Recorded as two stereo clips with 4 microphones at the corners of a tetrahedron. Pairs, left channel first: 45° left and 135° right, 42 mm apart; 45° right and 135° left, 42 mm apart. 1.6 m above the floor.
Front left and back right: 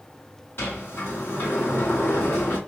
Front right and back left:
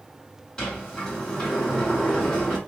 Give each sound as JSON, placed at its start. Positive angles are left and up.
{"t": 0.6, "sound": "a sliding door", "azimuth_deg": 25, "distance_m": 2.5}